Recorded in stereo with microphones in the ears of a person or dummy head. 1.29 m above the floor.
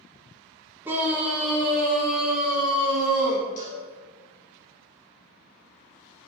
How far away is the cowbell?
About 1.2 m.